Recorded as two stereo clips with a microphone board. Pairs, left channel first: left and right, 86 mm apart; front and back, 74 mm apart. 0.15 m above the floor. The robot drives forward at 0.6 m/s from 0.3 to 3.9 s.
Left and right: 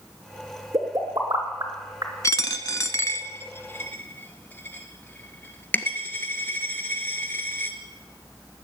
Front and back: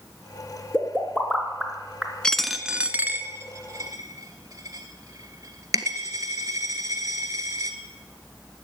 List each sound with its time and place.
0.7 s a pop: 70° right, 2.5 m; by 2.1 s 100° right, 2.5 m
2.2 s a dropped coin: 70° left, 0.7 m; by 7.8 s 150° left, 1.1 m